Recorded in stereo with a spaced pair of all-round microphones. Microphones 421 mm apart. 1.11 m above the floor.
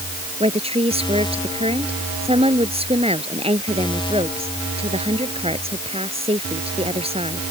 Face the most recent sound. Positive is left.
turn(degrees=-15)  # may be behind; listen again after turning